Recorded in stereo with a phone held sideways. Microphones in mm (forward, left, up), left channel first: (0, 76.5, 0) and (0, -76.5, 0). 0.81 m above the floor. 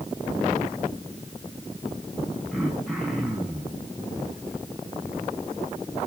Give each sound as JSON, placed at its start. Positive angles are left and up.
{"t": 2.5, "sound": "throat clearing", "side_deg": 0, "distance_m": 6.0}